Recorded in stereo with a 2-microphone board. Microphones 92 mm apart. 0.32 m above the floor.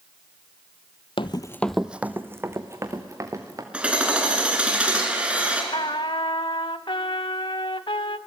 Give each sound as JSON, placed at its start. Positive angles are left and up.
{"t": 1.2, "sound": "running footsteps", "side_deg": 70, "distance_m": 0.7}
{"t": 3.7, "sound": "hammering", "side_deg": -15, "distance_m": 3.5}
{"t": 5.7, "sound": "a trumpet", "side_deg": 70, "distance_m": 0.6}